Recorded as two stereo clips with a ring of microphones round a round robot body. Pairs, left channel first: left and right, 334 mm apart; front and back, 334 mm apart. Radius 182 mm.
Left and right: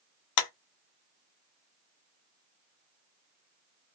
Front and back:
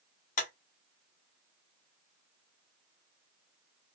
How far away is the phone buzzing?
I don't hear a phone buzzing.